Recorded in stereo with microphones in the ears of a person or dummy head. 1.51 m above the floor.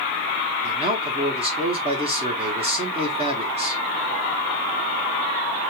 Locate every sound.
0.6 s a man speaking: 30° right (ahead or behind), 1.0 m